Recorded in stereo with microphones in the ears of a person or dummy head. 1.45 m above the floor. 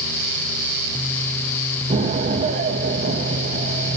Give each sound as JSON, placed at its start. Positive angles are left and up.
{"t": 1.9, "sound": "an explosion", "side_deg": -35, "distance_m": 2.0}